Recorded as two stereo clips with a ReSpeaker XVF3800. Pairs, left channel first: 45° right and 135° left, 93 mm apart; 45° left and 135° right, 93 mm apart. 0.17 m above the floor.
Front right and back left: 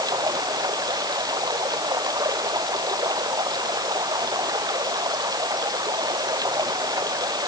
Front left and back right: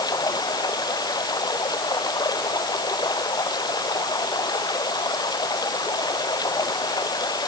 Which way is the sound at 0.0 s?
90° left.